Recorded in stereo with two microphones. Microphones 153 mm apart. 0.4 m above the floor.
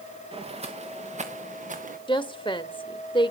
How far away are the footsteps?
About 2.5 m.